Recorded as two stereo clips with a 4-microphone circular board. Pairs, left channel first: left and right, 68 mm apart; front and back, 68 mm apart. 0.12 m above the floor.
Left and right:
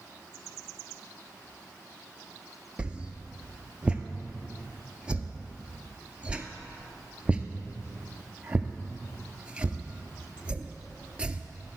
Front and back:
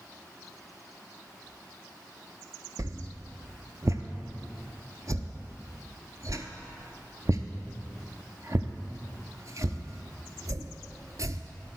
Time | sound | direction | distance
2.8 | a whoosh | 160° right | 0.7 m